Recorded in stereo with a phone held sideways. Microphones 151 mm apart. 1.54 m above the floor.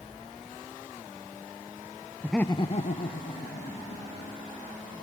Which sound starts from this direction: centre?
Laughter, at 2.2 s.